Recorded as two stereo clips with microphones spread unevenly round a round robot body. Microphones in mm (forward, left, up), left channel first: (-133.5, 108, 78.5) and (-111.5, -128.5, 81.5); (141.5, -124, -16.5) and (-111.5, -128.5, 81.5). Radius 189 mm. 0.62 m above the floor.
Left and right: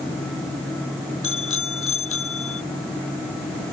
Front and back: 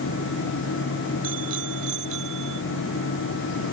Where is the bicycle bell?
125° left; by 2.6 s 120° left.